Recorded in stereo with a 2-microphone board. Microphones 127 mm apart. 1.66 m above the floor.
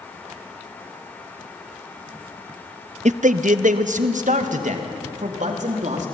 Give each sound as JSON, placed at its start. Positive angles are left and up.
{"t": 3.0, "sound": "a man speaking", "side_deg": -65, "distance_m": 0.5}